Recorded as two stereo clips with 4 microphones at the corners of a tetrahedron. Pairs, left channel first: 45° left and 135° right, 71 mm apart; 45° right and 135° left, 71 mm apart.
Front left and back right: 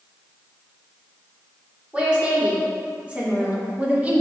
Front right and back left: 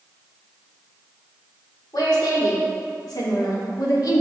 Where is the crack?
I don't hear a crack.